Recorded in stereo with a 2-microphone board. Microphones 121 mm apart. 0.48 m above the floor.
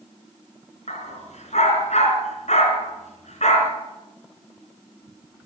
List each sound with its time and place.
0.9 s a dog barking: 80° left, 2.5 m